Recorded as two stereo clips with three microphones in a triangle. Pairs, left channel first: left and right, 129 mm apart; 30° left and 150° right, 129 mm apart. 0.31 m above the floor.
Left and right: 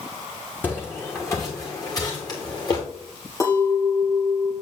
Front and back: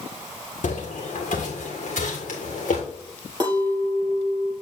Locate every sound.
0.6 s footsteps: 15° left, 1.7 m; by 2.8 s 35° left, 2.5 m
3.4 s a clink: 150° left, 4 m